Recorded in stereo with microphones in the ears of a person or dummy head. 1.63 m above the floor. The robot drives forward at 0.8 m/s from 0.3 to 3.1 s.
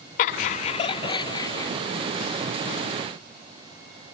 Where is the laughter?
45° left (ahead or behind), 0.8 m; by 1.7 s 20° left (ahead or behind), 1.6 m.